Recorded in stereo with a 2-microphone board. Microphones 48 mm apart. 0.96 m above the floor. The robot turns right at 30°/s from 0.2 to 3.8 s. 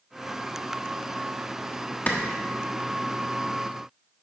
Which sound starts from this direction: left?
A clap, at 2.1 s.